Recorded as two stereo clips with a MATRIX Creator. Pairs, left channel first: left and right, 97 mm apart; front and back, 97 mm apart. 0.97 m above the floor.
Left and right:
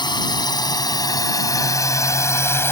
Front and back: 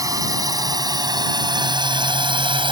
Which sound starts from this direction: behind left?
A drone, at 0.0 s.